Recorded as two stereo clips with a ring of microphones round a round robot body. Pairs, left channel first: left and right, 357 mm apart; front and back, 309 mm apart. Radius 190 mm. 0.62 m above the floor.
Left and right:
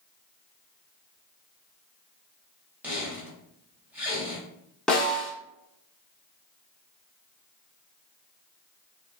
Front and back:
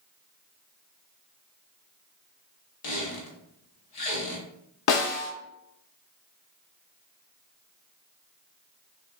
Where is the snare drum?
Straight ahead, 0.6 m.